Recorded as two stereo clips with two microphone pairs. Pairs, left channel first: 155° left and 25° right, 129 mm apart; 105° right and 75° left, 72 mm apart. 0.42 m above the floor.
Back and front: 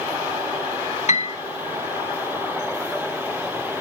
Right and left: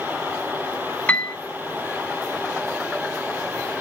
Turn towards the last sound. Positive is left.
turn(degrees=180)